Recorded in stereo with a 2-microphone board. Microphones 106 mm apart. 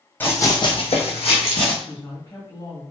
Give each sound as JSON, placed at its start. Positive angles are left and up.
{"t": 0.2, "sound": "running footsteps", "side_deg": 20, "distance_m": 1.1}
{"t": 1.8, "sound": "a woman speaking", "side_deg": 40, "distance_m": 1.8}